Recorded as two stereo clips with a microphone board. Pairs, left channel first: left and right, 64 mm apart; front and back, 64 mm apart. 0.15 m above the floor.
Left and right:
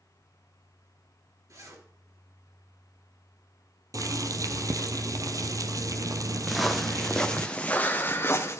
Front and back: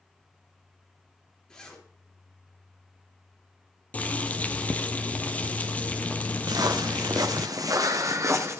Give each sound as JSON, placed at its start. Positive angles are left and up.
{"t": 1.5, "sound": "a zipper", "azimuth_deg": -75, "distance_m": 3.0}
{"t": 3.9, "sound": "boiling", "azimuth_deg": -65, "distance_m": 0.8}
{"t": 6.5, "sound": "footsteps", "azimuth_deg": 180, "distance_m": 1.7}